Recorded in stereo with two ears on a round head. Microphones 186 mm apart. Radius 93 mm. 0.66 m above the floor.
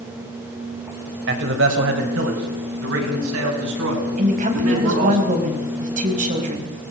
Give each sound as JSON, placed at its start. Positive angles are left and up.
{"t": 1.3, "sound": "a man speaking", "side_deg": -60, "distance_m": 3.5}
{"t": 4.2, "sound": "a woman speaking", "side_deg": -40, "distance_m": 4.5}